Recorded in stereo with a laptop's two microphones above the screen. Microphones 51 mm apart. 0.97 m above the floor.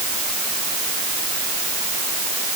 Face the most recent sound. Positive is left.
No sound to turn to.